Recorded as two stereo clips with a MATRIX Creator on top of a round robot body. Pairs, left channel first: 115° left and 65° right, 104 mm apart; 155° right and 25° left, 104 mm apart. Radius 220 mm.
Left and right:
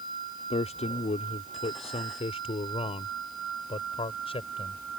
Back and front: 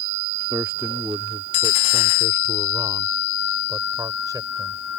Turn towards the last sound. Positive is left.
turn(degrees=80)